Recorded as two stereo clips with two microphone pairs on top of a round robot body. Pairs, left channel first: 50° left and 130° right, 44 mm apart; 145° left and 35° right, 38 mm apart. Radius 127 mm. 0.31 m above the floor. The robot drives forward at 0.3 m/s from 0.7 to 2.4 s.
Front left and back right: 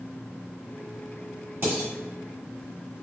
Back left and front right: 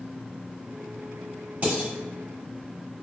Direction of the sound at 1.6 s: 90° right.